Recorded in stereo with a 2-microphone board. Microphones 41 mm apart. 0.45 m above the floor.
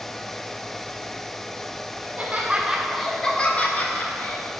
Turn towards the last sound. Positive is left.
turn(degrees=55)  # may be behind; listen again after turning